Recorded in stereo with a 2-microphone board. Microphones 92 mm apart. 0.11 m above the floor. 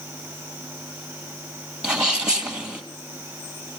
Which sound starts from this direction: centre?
A sneeze, at 1.8 s.